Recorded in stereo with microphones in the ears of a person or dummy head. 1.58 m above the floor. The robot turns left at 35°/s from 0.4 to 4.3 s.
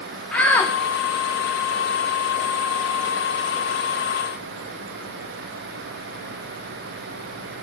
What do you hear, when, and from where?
0.3 s a shout: 10° left (ahead or behind), 0.6 m; by 0.7 s 20° left (ahead or behind), 0.6 m